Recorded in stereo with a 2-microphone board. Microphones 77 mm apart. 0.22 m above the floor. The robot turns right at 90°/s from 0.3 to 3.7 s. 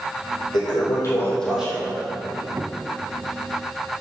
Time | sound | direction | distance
0.5 | a toilet flushing | 90° left | 4 m
2.3 | a squeak | 70° right | 0.6 m